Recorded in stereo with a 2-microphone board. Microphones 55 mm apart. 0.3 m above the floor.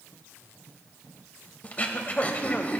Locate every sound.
1.6 s throat clearing: 30° left (ahead or behind), 0.6 m